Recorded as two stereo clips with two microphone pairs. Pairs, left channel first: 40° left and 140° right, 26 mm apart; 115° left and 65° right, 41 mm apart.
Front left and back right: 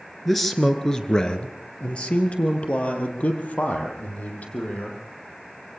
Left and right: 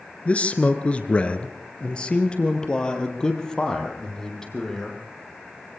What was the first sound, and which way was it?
A man speaking, 125° left.